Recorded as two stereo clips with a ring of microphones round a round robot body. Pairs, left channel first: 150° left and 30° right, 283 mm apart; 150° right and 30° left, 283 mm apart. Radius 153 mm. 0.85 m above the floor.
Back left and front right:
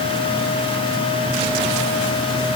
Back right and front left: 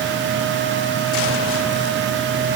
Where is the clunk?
No clunk in this recording.